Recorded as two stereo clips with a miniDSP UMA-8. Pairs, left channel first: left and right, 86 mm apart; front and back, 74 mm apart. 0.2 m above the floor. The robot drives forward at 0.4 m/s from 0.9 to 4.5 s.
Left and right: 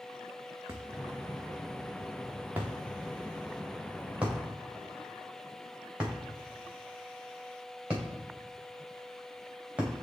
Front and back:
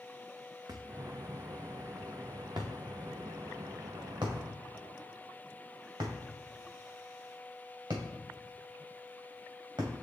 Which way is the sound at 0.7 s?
150° right.